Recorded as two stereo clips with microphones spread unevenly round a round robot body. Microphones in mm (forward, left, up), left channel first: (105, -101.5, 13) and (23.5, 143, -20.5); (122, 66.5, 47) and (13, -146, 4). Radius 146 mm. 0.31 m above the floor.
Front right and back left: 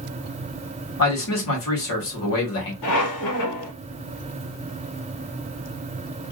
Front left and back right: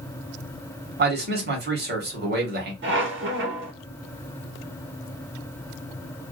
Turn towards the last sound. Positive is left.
turn(degrees=-80)